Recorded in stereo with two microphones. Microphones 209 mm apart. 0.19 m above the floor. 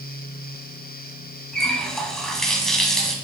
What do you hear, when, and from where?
1.5 s a running tap: centre (ahead or behind), 1.0 m